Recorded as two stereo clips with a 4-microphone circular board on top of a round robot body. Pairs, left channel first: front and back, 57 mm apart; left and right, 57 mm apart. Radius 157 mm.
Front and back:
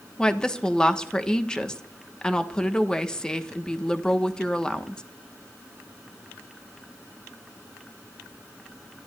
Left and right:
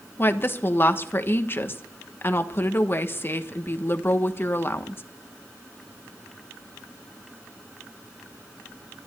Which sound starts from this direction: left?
A woman speaking, at 0.2 s.